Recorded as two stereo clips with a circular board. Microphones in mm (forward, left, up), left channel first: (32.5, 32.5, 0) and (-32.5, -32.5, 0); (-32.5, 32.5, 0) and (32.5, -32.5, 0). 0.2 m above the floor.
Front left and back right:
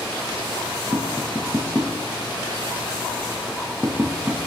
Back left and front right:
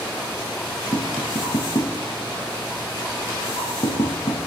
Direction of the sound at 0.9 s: 150° left.